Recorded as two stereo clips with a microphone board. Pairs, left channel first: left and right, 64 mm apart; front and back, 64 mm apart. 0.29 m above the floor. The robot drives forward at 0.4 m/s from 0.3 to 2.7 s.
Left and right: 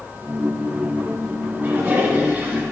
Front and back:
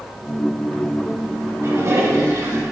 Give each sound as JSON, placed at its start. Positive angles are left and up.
{"t": 1.6, "sound": "a toilet flushing", "azimuth_deg": -145, "distance_m": 1.5}